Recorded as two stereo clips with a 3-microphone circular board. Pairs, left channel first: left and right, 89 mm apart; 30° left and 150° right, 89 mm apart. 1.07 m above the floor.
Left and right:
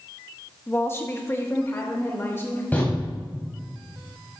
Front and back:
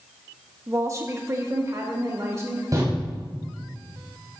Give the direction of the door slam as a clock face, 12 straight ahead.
7 o'clock.